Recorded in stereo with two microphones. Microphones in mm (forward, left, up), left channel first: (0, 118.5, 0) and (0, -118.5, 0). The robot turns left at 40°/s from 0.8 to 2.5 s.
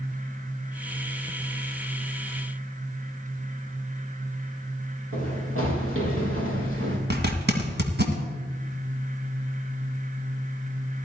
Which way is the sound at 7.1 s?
45° right (ahead or behind).